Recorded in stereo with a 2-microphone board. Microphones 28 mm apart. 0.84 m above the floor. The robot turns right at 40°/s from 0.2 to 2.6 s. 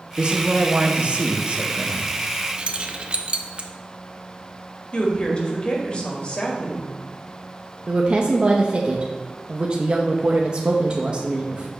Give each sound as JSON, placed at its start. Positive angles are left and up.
{"t": 0.2, "sound": "a man speaking", "azimuth_deg": -125, "distance_m": 0.8}
{"t": 2.6, "sound": "keys jangling", "side_deg": -35, "distance_m": 0.6}
{"t": 4.9, "sound": "a woman speaking", "side_deg": 35, "distance_m": 1.6}
{"t": 7.9, "sound": "a woman speaking", "side_deg": -35, "distance_m": 0.7}